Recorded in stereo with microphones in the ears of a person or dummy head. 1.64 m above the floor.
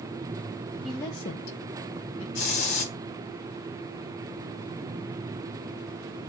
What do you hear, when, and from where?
0.8 s a woman speaking: 5° right (ahead or behind), 0.8 m; by 2.2 s 80° left, 1.7 m
2.4 s a hiss: 65° left (ahead or behind), 3 m